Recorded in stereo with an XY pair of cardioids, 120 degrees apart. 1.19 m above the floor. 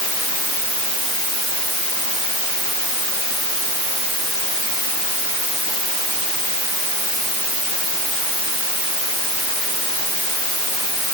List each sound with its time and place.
Only background noise.